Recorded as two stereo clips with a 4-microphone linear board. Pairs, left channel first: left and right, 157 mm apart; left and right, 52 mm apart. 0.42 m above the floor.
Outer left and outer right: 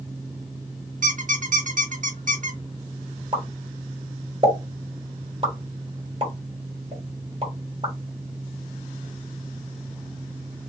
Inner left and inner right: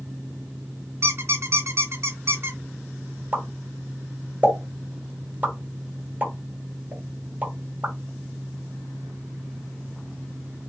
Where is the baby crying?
I don't hear a baby crying.